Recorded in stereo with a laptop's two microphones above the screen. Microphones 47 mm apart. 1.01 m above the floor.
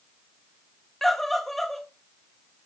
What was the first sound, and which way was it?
A scream, 5° left (ahead or behind).